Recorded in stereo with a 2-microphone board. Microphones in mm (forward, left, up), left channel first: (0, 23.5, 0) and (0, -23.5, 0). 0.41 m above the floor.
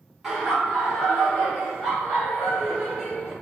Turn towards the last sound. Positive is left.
turn(degrees=0)  # may be behind; listen again after turning